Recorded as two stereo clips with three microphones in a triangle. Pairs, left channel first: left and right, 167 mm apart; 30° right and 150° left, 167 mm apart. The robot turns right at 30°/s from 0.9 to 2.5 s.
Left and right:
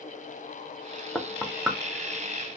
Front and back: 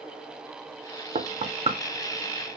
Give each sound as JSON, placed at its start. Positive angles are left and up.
{"t": 1.1, "sound": "knocking", "azimuth_deg": 170, "distance_m": 0.6}